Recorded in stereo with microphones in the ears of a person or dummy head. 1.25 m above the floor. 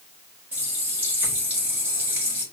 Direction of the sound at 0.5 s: 10° right (ahead or behind).